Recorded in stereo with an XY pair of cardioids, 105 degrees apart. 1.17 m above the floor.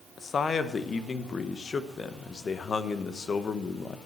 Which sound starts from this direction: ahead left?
A man speaking, at 0.2 s.